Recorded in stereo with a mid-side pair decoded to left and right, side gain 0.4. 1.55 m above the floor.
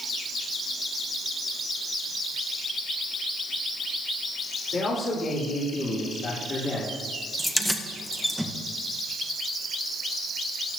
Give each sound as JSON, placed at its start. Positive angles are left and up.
{"t": 4.7, "sound": "a man speaking", "azimuth_deg": 60, "distance_m": 4.0}
{"t": 7.4, "sound": "keys jangling", "azimuth_deg": 10, "distance_m": 1.2}